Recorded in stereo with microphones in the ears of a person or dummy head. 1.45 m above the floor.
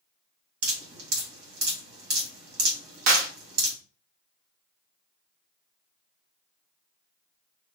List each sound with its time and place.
0.6 s dripping: 75° right (ahead or behind), 1.3 m
3.1 s a clap: 45° right (ahead or behind), 0.9 m